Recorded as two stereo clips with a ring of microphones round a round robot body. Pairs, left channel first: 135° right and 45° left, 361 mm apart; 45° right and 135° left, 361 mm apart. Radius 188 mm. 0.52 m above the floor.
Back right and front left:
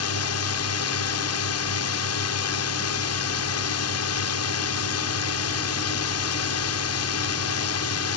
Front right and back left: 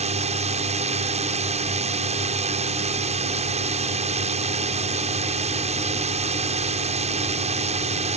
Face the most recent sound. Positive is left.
turn(degrees=-160)